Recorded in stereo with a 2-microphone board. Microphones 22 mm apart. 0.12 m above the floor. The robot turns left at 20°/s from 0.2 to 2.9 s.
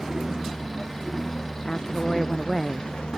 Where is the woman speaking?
30° left (ahead or behind); by 2.9 s 5° left (ahead or behind).